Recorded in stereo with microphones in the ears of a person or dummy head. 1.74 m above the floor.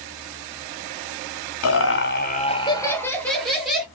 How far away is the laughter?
About 0.6 m.